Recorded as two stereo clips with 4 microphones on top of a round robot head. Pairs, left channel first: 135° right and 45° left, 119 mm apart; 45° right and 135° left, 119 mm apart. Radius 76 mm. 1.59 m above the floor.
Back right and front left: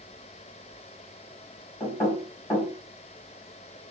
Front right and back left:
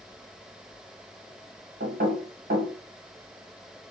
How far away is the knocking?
About 1.3 m.